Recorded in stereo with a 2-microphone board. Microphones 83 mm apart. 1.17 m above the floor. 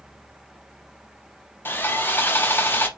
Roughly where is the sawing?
Left.